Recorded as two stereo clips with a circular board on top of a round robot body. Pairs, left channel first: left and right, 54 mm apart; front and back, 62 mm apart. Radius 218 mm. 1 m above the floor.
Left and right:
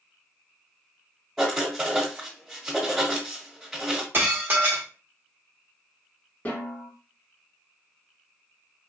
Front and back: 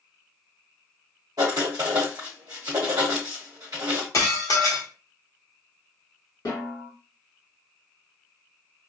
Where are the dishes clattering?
40° right, 0.8 m.